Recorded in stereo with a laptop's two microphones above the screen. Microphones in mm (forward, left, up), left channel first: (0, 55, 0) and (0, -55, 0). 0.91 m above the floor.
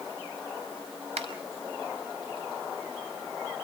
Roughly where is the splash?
I don't hear a splash.